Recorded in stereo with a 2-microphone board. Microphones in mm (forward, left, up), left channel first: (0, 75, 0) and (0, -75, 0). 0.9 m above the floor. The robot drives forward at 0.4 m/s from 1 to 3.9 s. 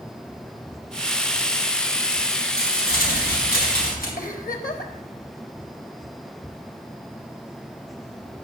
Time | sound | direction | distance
2.6 | crumpling | 85° left | 4 m
4.2 | a giggle | 70° left (ahead or behind) | 1.2 m